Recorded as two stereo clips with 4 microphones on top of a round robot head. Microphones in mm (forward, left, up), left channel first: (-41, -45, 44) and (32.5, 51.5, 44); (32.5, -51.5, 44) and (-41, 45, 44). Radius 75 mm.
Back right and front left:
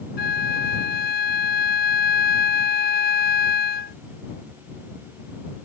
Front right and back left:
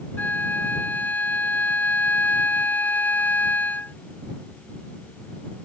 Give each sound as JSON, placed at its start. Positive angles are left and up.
{"t": 0.2, "sound": "a flute", "azimuth_deg": -130}